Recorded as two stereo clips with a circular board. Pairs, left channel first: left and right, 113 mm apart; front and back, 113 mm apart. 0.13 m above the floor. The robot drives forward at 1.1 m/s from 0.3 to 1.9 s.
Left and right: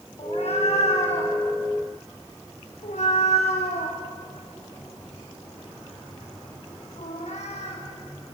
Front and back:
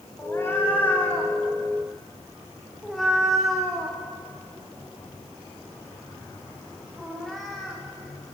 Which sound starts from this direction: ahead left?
A cat meowing, at 0.2 s.